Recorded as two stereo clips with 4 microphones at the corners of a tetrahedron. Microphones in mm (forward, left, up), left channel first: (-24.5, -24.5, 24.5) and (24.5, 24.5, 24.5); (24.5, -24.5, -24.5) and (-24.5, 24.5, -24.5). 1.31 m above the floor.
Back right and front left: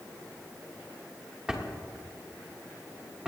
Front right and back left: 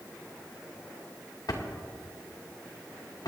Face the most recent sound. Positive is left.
turn(degrees=-35)